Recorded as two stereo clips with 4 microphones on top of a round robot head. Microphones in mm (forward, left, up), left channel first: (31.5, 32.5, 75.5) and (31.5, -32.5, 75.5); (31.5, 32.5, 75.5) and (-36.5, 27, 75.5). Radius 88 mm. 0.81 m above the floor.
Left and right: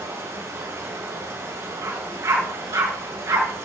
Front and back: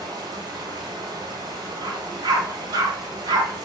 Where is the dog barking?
140° right, 3.5 m.